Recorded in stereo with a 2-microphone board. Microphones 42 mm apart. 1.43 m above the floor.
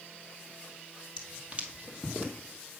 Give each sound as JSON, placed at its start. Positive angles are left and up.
{"t": 1.2, "sound": "footsteps", "side_deg": -20, "distance_m": 1.7}